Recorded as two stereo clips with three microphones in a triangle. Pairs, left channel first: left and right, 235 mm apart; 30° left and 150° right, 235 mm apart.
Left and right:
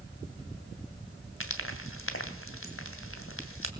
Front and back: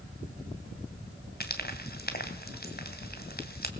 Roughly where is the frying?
Left.